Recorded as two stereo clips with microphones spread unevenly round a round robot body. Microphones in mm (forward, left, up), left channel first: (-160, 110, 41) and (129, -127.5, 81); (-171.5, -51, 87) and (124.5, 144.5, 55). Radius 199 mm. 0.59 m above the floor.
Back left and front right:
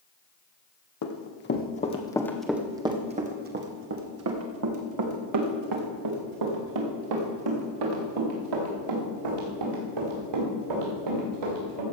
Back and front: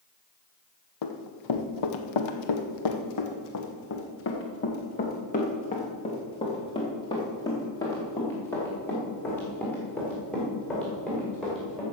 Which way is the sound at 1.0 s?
165° right.